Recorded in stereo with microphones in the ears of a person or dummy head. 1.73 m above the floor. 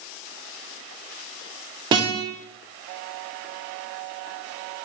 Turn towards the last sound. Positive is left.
turn(degrees=-30)  # may be behind; listen again after turning